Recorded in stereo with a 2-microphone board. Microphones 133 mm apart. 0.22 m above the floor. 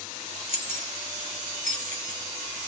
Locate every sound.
0.5 s keys jangling: 50° right (ahead or behind), 2.5 m; by 2.2 s 65° right (ahead or behind), 1.6 m